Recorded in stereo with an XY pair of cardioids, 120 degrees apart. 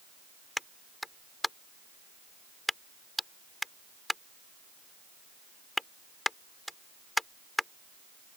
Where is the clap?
5° left.